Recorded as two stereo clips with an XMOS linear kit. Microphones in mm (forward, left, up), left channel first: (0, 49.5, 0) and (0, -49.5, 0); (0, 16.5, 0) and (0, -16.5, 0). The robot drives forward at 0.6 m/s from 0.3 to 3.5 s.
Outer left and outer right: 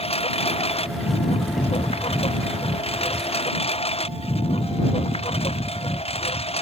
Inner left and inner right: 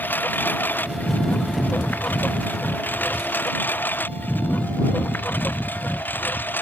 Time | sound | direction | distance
0.0 | a lawn mower | 85° left | ?